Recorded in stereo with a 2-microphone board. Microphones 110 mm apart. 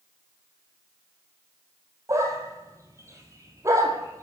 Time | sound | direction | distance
2.1 | a dog barking | 30° right (ahead or behind) | 2 m